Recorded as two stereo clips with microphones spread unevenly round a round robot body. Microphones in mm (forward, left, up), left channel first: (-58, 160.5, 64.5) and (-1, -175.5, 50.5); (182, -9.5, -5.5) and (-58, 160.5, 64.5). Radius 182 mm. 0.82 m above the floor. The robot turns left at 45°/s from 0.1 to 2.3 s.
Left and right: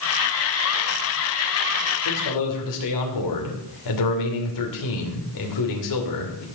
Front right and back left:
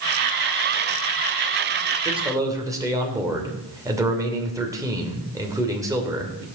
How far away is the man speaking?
About 2.5 m.